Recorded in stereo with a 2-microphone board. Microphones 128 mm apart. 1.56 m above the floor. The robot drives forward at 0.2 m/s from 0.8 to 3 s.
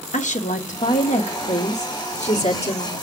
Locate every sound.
0.1 s a woman speaking: 75° left (ahead or behind), 1.4 m; by 2.9 s 60° left (ahead or behind), 1.6 m